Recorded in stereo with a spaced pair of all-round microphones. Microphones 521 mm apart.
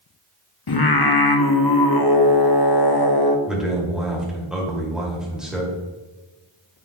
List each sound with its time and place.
0.7 s singing: 45° left (ahead or behind), 0.7 m
3.5 s a man speaking: centre (ahead or behind), 2 m